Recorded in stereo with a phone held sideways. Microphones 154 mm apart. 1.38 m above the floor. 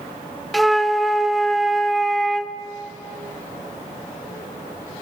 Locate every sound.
0.5 s a flute: centre (ahead or behind), 0.7 m